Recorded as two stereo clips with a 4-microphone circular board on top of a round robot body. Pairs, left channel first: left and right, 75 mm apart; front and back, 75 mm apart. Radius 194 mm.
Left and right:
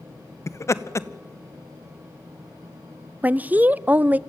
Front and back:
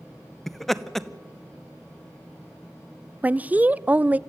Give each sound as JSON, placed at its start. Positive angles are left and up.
{"t": 0.5, "sound": "laughter", "azimuth_deg": 85, "distance_m": 1.1}
{"t": 3.2, "sound": "a woman speaking", "azimuth_deg": -135, "distance_m": 0.5}